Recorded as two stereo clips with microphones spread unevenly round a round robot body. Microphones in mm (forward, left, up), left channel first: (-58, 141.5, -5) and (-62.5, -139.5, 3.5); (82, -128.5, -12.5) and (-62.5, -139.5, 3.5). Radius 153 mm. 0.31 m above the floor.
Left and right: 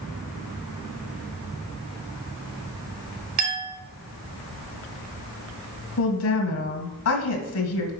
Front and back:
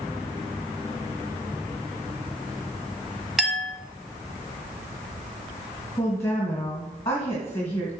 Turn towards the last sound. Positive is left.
turn(degrees=75)